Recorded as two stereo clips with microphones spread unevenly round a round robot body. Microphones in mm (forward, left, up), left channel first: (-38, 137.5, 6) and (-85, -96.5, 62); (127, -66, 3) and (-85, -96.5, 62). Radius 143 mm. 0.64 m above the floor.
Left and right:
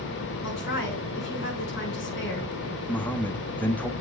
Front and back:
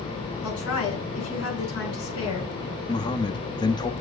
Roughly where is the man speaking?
Ahead.